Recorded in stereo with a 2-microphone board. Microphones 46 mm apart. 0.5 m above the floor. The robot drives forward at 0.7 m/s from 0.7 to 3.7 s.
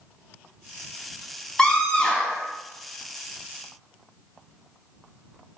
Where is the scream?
15° left (ahead or behind), 0.9 m; by 2.5 s 20° left (ahead or behind), 0.8 m.